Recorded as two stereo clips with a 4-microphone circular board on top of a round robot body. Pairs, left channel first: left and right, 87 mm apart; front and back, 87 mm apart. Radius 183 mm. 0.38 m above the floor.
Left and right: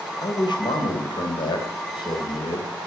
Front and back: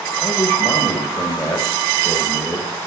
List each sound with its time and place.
0.2 s a man speaking: 65° left, 2.5 m